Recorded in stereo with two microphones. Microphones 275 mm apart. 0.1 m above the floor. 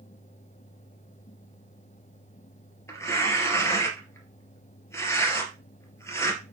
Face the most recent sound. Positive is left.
turn(degrees=10)  # may be behind; listen again after turning